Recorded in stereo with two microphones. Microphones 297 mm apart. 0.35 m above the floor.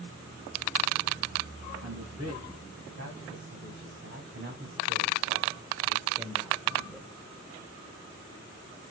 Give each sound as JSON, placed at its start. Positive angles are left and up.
{"t": 1.8, "sound": "a man speaking", "side_deg": -55, "distance_m": 3.5}